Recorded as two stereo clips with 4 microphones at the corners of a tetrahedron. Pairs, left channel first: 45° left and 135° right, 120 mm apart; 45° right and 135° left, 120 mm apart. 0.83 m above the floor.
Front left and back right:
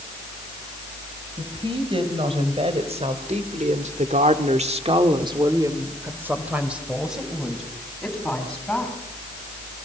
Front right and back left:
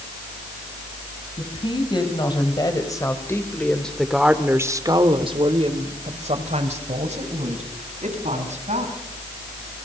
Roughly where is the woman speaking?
Right.